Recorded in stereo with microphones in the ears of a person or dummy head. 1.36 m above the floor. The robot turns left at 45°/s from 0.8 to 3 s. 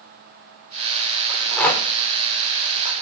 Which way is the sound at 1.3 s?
5° right (ahead or behind).